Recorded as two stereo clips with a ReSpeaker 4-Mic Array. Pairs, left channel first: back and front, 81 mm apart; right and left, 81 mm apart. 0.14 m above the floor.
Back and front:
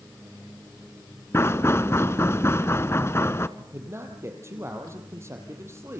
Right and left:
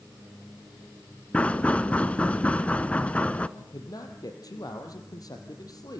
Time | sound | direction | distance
1.3 | knocking | 155° right | 1.0 m
3.6 | a man speaking | 55° right | 3.5 m